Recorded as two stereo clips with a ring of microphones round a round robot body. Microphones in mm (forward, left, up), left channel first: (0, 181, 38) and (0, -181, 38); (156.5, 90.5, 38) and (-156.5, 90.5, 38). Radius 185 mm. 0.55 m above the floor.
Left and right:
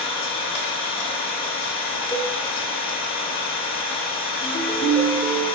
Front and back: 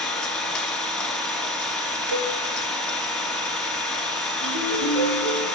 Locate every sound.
0.0 s an engine running: 85° left, 1.4 m
2.1 s a cowbell: 170° left, 0.8 m
4.4 s a ringtone: 170° left, 2 m